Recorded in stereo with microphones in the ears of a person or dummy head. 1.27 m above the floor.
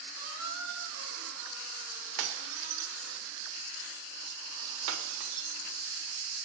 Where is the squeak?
75° right (ahead or behind), 4.5 m.